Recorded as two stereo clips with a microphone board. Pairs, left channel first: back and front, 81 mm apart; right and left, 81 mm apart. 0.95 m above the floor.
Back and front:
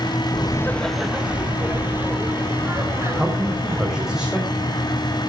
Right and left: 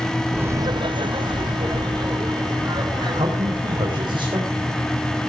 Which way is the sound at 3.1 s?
85° left.